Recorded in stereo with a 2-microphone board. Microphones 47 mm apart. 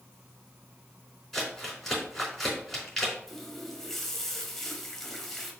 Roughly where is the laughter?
No laughter in this recording.